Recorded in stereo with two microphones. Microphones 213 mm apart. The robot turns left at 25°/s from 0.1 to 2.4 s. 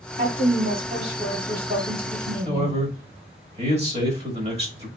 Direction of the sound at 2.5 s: 30° right (ahead or behind).